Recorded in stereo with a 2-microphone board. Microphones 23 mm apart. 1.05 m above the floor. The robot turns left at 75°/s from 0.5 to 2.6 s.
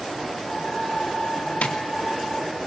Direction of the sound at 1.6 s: 80° left.